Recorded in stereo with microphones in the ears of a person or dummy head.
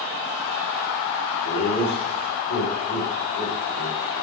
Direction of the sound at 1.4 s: 70° left (ahead or behind).